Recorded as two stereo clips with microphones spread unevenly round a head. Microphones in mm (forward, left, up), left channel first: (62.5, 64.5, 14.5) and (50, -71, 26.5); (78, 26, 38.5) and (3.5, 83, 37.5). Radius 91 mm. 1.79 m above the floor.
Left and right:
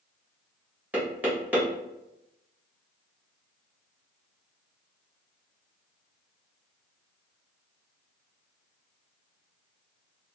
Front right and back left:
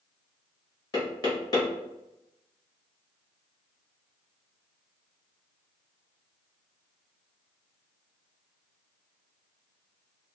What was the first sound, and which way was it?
Knocking, 25° right.